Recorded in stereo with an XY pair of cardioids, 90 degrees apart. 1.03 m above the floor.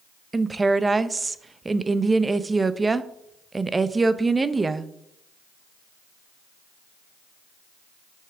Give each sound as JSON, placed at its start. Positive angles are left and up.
{"t": 0.3, "sound": "a woman speaking", "azimuth_deg": -30, "distance_m": 0.6}